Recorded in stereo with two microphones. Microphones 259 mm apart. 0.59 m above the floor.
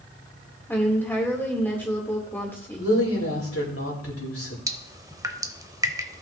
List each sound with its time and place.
0.7 s a woman speaking: 10° left (ahead or behind), 2 m
2.8 s a woman speaking: 60° left (ahead or behind), 3 m
4.7 s dripping: 15° right (ahead or behind), 0.6 m